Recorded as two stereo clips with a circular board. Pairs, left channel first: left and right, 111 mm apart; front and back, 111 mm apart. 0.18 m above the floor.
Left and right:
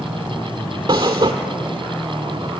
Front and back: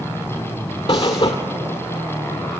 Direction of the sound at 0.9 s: 40° right.